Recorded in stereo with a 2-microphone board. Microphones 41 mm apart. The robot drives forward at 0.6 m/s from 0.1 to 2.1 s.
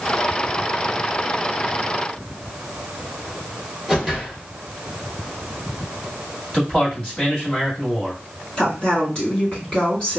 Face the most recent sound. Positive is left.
turn(degrees=25)  # may be behind; listen again after turning